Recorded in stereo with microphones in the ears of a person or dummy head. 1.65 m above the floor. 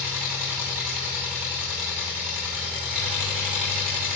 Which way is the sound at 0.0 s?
5° right (ahead or behind).